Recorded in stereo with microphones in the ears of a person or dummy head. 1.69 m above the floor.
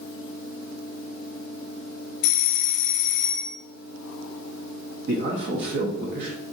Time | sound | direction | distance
2.2 | a doorbell | 75° left (ahead or behind) | 0.5 m
5.1 | a man speaking | 55° right (ahead or behind) | 0.6 m